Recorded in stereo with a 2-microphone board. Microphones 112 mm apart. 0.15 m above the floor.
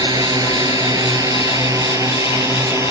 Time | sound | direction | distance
0.0 | a drone | 35° right (ahead or behind) | ?